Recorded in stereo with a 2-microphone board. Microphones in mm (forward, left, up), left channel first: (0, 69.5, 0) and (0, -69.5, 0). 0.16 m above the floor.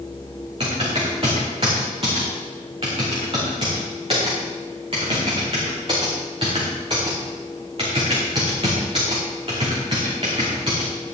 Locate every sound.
0.6 s typing on a keyboard: 40° right (ahead or behind), 5 m